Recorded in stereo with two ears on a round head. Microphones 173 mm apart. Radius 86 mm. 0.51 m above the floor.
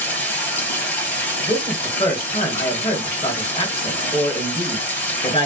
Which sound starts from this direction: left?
A man speaking, at 1.5 s.